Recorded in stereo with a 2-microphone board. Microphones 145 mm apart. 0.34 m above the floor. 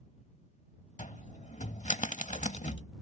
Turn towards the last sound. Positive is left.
turn(degrees=55)  # may be behind; listen again after turning